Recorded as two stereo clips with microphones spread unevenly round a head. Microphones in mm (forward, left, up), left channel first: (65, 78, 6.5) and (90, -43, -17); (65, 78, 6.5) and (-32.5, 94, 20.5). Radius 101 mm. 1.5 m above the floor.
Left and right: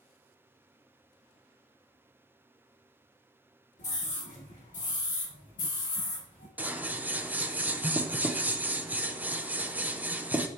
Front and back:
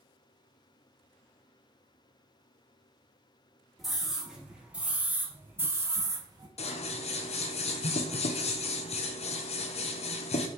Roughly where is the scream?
Left.